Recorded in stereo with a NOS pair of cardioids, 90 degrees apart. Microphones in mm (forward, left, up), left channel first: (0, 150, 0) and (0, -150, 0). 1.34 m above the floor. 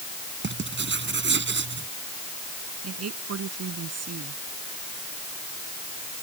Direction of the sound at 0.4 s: 40° right.